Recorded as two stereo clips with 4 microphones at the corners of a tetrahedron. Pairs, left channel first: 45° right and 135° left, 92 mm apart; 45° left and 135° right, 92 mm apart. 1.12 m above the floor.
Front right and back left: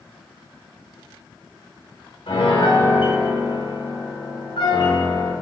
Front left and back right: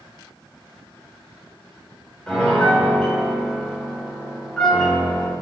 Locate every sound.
2.3 s a piano: 35° right, 3.5 m